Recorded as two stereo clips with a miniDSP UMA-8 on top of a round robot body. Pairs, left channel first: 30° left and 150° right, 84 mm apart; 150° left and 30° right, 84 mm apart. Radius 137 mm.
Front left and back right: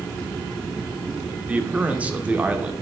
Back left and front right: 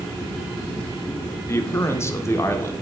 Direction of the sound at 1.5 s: 155° left.